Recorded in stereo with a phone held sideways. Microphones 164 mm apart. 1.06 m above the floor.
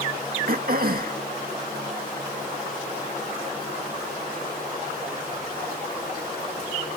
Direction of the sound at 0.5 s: 65° right (ahead or behind).